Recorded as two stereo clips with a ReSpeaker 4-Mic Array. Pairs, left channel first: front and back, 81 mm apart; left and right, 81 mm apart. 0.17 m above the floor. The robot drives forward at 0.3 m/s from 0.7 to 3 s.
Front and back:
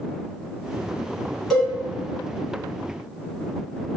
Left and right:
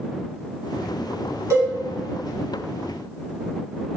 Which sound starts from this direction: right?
A cowbell, at 1.5 s.